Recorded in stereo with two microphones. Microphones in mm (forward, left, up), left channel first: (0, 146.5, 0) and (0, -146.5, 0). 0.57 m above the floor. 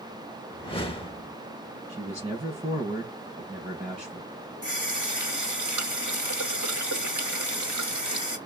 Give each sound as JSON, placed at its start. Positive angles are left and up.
{"t": 0.5, "sound": "a whoosh", "side_deg": 20, "distance_m": 0.8}
{"t": 1.9, "sound": "a man speaking", "side_deg": -20, "distance_m": 5.0}
{"t": 4.6, "sound": "a running tap", "side_deg": -80, "distance_m": 1.9}